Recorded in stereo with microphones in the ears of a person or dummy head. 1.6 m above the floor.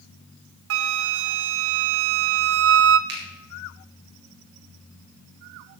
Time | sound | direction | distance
0.7 | a flute | 85° right | 0.7 m
3.1 | a finger snap | 70° right (ahead or behind) | 4 m